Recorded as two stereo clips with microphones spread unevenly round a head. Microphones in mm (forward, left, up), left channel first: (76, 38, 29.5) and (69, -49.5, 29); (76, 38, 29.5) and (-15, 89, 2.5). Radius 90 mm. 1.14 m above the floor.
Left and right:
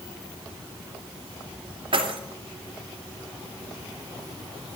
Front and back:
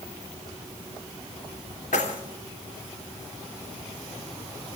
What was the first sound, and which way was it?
Keys jangling, 75° right.